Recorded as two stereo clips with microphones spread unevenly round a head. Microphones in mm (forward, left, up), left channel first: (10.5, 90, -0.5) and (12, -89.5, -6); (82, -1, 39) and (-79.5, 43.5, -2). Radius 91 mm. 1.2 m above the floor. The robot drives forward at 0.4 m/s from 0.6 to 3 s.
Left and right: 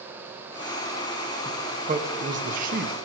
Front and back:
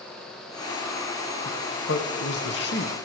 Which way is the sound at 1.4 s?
40° right.